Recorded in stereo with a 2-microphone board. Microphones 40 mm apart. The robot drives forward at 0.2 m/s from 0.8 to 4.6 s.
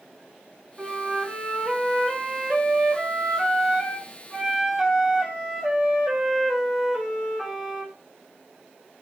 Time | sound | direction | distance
0.8 | a flute | 10° right (ahead or behind) | 1.1 m